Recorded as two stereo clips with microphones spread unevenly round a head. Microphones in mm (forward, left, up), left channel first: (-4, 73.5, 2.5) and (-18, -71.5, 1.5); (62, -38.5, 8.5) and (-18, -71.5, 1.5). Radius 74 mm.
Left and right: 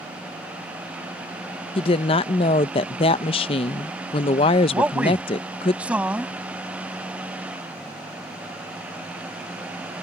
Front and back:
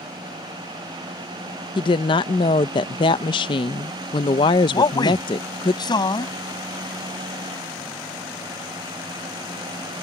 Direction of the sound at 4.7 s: 10° right.